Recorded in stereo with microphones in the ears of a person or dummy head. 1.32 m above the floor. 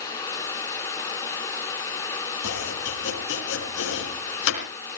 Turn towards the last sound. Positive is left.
turn(degrees=75)  # may be behind; listen again after turning